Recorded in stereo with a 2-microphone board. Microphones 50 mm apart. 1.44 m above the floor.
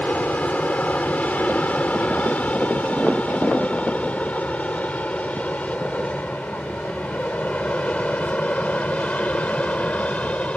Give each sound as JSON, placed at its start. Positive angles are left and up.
{"t": 0.0, "sound": "an aircraft", "side_deg": 30}